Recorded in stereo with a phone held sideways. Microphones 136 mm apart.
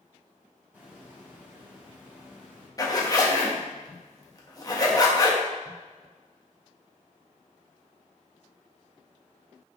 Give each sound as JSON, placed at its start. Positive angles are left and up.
{"t": 0.7, "sound": "a hiss", "side_deg": -15, "distance_m": 3.5}
{"t": 2.8, "sound": "a zipper", "side_deg": 25, "distance_m": 1.5}